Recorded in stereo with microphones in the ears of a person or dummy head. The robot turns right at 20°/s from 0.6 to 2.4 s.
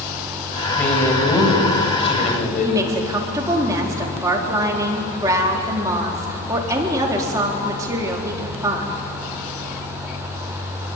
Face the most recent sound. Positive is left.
turn(degrees=-15)  # may be behind; listen again after turning